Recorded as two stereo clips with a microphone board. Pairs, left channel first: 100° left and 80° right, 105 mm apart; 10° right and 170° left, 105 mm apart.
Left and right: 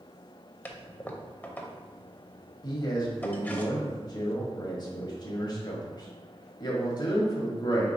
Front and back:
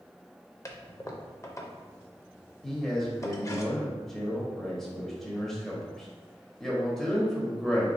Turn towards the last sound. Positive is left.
turn(degrees=75)